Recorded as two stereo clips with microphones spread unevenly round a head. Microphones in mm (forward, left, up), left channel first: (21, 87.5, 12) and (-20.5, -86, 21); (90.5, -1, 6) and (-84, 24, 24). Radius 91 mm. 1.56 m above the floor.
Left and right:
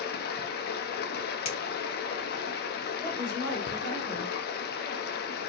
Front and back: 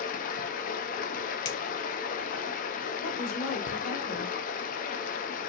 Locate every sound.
0.0 s running water: 40° left, 0.8 m
1.4 s a finger snap: 20° left, 1.5 m
3.0 s a woman speaking: 10° left, 2 m